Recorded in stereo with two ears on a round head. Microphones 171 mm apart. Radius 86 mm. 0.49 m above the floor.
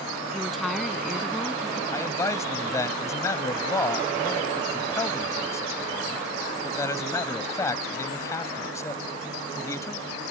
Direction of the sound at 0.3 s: Centre (ahead or behind).